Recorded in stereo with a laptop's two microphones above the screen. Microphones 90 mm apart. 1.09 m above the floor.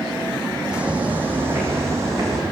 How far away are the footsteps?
About 3 m.